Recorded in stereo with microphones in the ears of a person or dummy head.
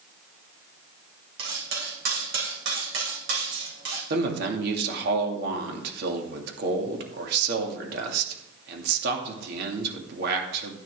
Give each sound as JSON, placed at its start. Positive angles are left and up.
{"t": 1.4, "sound": "cutlery clinking", "side_deg": -65, "distance_m": 3.5}
{"t": 4.1, "sound": "a man speaking", "side_deg": -65, "distance_m": 2.0}